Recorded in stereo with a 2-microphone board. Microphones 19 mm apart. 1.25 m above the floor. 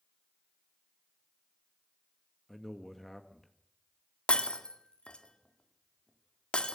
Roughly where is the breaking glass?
Left.